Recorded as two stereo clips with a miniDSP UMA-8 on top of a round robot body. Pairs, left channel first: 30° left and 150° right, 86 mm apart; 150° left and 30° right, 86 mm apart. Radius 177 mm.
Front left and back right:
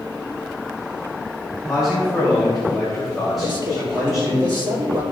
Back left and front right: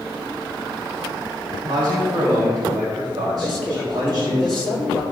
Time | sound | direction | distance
1.7 | a man speaking | 60° right | 3.5 m
3.4 | a man speaking | 115° right | 3.5 m